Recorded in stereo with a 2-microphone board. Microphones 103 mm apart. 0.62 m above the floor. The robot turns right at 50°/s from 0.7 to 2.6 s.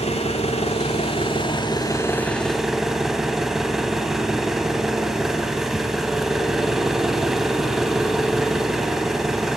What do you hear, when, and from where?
0.0 s an engine running: 90° left, 1.6 m; by 9.6 s 175° right, 1.6 m